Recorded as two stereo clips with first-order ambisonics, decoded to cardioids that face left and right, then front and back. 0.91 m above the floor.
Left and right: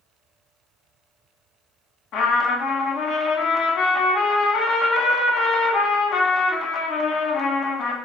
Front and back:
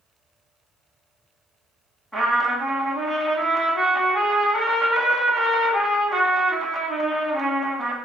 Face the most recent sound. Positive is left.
turn(degrees=90)